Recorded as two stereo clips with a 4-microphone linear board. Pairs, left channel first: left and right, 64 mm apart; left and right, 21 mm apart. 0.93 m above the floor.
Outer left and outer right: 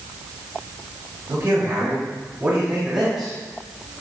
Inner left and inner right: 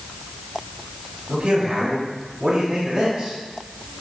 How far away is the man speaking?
About 6 m.